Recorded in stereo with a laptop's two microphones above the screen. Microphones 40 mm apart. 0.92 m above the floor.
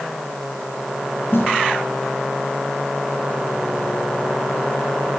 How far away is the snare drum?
About 9 m.